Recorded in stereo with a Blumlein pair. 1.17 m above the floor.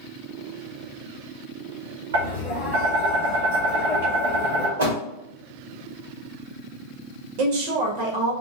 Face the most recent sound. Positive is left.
turn(degrees=-45)